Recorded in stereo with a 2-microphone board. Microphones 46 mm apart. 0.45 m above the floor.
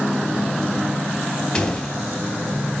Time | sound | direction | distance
1.5 | a door slam | 15° left (ahead or behind) | 2.5 m